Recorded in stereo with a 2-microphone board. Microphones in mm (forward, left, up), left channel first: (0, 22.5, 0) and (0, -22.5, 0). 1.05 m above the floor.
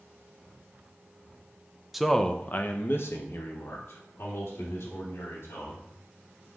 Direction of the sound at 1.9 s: 5° right (ahead or behind).